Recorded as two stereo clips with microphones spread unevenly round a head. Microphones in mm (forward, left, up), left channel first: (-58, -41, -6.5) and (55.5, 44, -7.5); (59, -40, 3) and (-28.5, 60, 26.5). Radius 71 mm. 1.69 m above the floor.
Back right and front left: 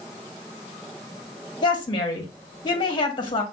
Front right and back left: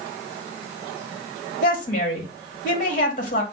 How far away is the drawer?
No drawer in this recording.